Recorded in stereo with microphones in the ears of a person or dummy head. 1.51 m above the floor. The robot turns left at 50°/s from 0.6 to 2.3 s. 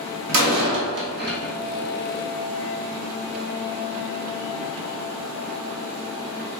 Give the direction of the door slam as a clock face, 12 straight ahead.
3 o'clock.